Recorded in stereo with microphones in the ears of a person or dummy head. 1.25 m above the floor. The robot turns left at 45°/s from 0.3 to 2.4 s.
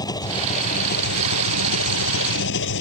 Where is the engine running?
165° left; by 2.8 s 70° left.